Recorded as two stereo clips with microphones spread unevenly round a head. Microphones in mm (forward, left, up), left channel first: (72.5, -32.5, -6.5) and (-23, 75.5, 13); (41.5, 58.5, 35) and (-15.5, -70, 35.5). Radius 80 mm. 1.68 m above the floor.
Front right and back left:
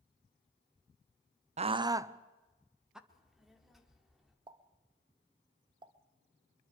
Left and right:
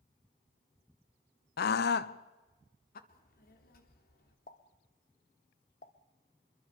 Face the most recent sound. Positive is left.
turn(degrees=95)